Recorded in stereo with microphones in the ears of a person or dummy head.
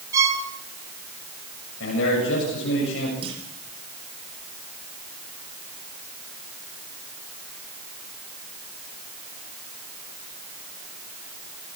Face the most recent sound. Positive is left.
turn(degrees=-30)  # may be behind; listen again after turning